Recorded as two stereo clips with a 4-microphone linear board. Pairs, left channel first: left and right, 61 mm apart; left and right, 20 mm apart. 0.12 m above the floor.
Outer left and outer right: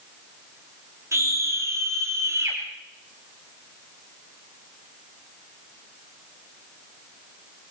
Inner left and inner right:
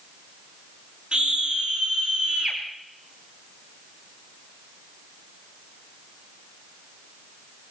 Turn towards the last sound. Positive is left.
turn(degrees=-50)  # may be behind; listen again after turning